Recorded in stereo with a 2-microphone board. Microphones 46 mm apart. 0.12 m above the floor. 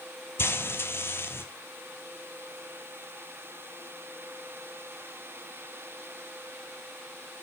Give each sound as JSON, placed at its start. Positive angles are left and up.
{"t": 0.4, "sound": "frying", "side_deg": 55, "distance_m": 0.7}